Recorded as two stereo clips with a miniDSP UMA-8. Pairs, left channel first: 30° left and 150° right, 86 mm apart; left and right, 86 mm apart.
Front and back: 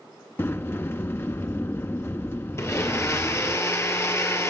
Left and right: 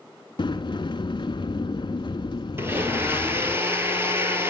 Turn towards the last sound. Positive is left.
turn(degrees=-25)